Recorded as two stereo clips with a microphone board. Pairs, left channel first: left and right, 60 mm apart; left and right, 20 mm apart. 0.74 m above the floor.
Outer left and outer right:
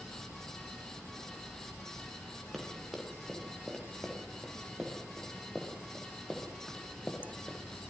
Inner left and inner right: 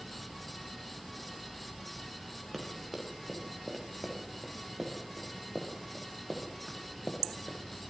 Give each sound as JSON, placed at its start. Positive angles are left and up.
{"t": 2.5, "sound": "running footsteps", "side_deg": 0, "distance_m": 9.5}